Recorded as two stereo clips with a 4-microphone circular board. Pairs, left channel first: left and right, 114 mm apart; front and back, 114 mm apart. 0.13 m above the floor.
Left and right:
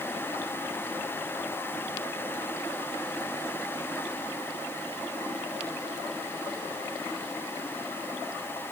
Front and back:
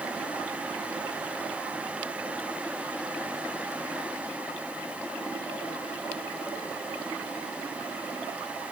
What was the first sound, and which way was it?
Only background noise.